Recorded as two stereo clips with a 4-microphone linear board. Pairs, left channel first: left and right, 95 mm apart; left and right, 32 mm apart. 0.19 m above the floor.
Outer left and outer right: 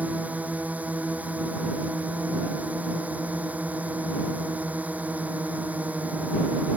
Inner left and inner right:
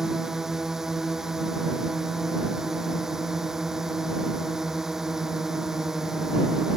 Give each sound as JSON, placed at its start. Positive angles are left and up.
{"t": 0.0, "sound": "a drone", "side_deg": -15}